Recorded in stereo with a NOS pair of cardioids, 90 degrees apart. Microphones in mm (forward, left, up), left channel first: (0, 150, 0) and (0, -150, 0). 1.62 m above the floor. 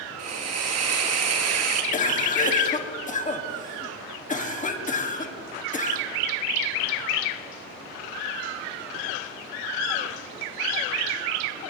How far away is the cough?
About 1.4 m.